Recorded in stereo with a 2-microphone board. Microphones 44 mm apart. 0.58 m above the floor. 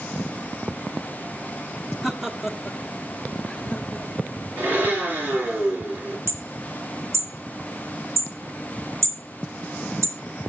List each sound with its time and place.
2.0 s laughter: 10° right (ahead or behind), 1.3 m; by 4.3 s 10° left (ahead or behind), 2 m
4.6 s a blender: 45° right (ahead or behind), 6.5 m
6.3 s hammering: 85° right, 1.8 m